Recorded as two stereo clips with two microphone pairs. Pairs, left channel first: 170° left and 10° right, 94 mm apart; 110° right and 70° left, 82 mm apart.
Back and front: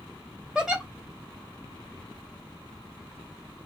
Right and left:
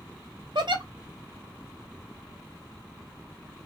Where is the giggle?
75° left, 0.9 m.